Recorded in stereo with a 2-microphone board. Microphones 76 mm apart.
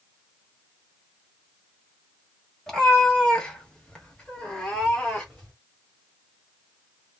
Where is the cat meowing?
10° left (ahead or behind), 1.2 m; by 5.5 s 5° left (ahead or behind), 2 m.